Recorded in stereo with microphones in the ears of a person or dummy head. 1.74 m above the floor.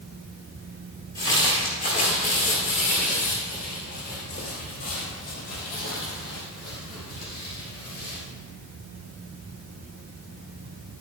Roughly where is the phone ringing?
I don't hear a phone ringing.